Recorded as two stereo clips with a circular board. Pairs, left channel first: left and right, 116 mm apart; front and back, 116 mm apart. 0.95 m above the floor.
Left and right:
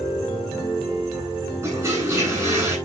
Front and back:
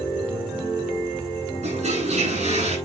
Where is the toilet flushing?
155° right, 10 m.